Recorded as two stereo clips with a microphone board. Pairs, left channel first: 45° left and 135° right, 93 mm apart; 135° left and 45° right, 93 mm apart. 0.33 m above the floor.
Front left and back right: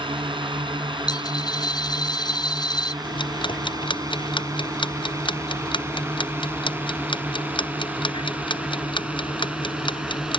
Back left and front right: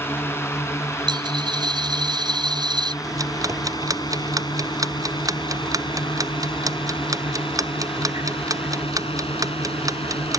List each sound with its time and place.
0.0 s a drone: 160° right; by 10.4 s 140° left
1.1 s a dropped coin: straight ahead
3.0 s ticking: 10° left